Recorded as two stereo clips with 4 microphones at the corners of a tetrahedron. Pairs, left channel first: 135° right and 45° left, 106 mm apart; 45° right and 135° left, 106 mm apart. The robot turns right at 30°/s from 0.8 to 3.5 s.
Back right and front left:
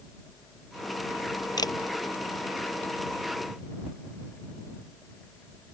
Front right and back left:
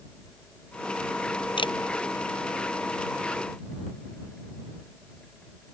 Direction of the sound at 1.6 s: 85° right.